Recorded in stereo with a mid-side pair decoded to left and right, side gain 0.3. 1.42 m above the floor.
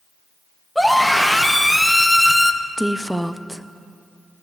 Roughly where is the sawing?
I don't hear sawing.